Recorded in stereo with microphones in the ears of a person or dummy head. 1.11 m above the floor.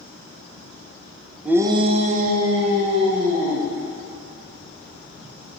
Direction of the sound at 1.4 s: Centre (ahead or behind).